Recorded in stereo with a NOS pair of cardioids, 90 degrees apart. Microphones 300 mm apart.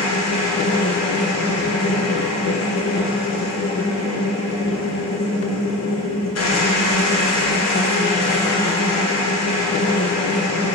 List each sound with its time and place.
0.0 s a machine running: 55° left, 1.5 m